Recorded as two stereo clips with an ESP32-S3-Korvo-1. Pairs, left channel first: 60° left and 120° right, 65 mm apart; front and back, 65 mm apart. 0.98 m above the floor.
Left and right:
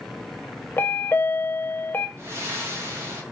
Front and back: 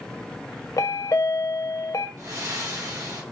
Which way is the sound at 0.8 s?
10° left.